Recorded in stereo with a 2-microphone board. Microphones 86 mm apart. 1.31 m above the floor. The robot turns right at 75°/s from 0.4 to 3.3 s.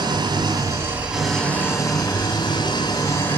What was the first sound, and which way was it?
An engine running, 65° right.